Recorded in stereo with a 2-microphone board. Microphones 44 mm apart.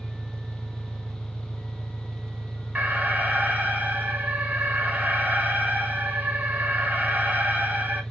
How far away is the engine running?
About 0.8 m.